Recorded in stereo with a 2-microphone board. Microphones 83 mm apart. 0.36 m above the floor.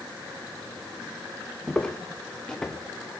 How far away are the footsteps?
About 3 m.